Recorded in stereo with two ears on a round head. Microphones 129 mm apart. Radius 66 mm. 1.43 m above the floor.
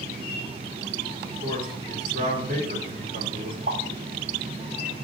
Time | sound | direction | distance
1.2 | a man speaking | 55° right (ahead or behind) | 4.5 m
3.7 | a pop | 70° right (ahead or behind) | 3.5 m